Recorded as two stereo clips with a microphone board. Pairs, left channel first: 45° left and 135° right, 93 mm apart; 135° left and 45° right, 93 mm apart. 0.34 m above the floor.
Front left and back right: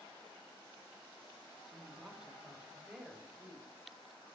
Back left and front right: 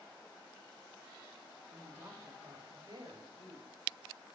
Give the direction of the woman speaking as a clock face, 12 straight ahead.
2 o'clock.